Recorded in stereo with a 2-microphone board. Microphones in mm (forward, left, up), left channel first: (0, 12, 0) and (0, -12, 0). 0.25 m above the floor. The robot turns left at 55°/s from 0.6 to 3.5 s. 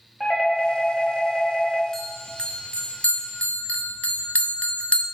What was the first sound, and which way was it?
A doorbell, 20° left (ahead or behind).